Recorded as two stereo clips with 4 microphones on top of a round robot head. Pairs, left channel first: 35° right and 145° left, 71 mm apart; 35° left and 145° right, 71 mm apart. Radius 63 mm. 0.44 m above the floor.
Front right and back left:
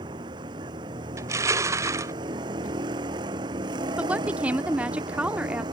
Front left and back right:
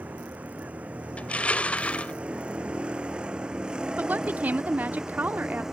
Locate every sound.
0.0 s a vehicle: 145° left; by 5.7 s 130° left
1.2 s crushing: 105° left
4.0 s a woman speaking: 170° right